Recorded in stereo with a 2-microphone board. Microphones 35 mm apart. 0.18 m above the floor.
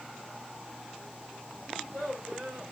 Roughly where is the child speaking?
Right.